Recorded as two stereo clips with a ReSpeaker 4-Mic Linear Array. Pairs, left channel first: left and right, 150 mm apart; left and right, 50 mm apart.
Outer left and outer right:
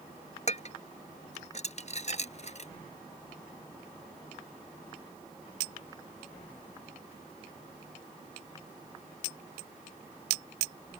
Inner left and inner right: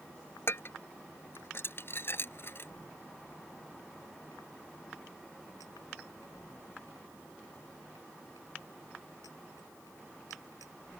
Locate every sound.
0.5 s dishes clattering: 50° left (ahead or behind)